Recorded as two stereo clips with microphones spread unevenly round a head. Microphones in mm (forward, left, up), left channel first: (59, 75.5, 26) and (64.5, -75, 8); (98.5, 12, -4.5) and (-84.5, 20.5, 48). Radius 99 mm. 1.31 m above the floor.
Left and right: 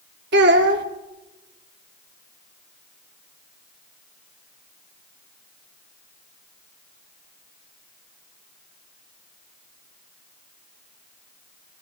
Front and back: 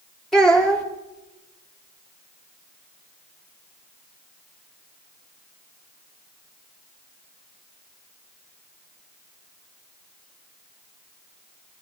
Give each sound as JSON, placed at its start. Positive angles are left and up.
{"t": 0.3, "sound": "a child speaking", "azimuth_deg": -95, "distance_m": 1.8}